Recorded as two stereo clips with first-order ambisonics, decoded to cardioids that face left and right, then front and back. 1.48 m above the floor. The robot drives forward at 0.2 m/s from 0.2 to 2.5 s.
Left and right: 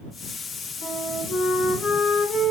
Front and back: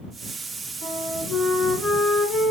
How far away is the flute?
About 1.5 m.